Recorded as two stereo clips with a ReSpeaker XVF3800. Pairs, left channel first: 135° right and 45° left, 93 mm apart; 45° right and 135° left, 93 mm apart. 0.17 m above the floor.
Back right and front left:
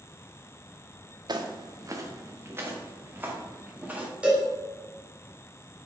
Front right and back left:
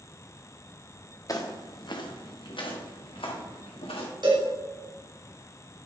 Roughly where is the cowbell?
Behind left.